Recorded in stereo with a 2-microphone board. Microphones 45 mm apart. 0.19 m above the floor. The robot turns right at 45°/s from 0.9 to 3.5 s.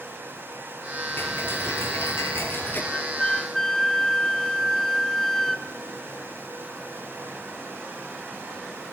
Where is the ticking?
55° left, 4 m; by 2.8 s 130° left, 4 m.